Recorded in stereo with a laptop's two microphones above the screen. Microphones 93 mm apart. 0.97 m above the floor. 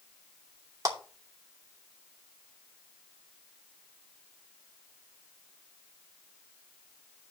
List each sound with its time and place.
0.8 s a clap: 35° right (ahead or behind), 3 m